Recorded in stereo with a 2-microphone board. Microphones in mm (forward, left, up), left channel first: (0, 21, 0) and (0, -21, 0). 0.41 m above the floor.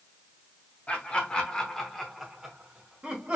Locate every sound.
0.9 s laughter: 30° left (ahead or behind), 1.0 m; by 3.4 s 25° right (ahead or behind), 1.2 m